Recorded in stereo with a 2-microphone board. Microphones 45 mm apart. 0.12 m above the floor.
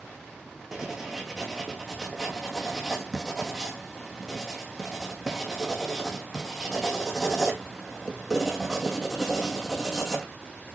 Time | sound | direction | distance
0.7 | writing | 10° right (ahead or behind) | 1.3 m